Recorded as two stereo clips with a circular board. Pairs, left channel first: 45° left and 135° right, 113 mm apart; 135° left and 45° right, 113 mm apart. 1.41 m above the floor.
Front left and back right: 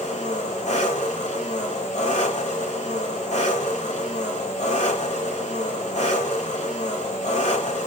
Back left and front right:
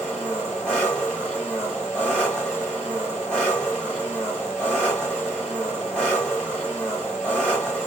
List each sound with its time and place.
0.0 s an engine running: 55° left, 3 m